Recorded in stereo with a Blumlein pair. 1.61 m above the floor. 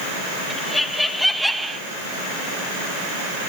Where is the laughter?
10° left, 1.3 m; by 1.8 s 10° right, 0.5 m.